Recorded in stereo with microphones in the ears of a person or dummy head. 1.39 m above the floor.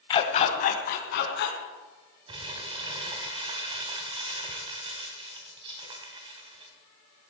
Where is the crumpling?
35° right (ahead or behind), 2 m.